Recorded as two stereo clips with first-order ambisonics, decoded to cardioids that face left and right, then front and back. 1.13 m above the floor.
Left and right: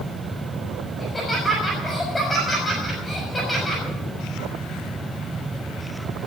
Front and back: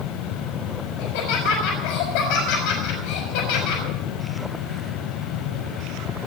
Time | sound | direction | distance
1.0 | laughter | 5° left | 5 m